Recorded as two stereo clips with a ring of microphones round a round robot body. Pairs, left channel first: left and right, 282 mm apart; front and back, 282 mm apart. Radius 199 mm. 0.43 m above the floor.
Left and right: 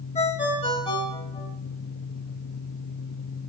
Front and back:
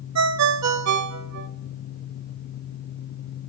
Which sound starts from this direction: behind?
A ringtone, at 0.1 s.